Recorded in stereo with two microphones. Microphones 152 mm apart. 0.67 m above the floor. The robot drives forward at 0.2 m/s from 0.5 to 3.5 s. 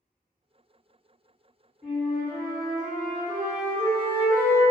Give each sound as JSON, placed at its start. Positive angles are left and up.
{"t": 1.8, "sound": "a flute", "side_deg": 5, "distance_m": 1.8}